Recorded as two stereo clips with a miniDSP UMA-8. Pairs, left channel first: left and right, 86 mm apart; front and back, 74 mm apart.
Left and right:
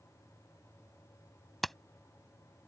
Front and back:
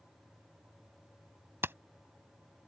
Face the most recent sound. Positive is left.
turn(degrees=175)